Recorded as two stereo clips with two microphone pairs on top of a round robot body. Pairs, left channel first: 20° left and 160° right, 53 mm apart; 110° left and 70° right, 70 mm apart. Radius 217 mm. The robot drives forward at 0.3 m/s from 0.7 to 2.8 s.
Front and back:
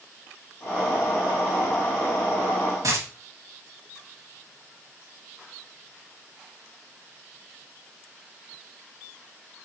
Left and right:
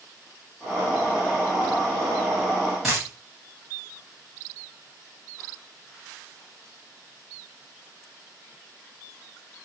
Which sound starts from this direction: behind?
A dropped coin, at 2.8 s.